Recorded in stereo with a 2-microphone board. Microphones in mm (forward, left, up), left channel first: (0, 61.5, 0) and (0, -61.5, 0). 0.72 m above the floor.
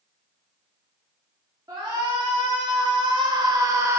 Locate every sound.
1.7 s a shout: 30° right (ahead or behind), 1.2 m; by 4.0 s 20° right (ahead or behind), 0.6 m